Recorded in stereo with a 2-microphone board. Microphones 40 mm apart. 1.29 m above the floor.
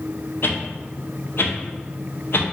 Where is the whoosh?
60° left (ahead or behind), 0.6 m.